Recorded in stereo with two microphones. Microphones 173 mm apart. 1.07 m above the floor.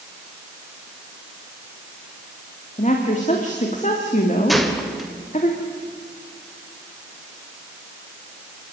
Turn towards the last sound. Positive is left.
turn(degrees=0)  # may be behind; listen again after turning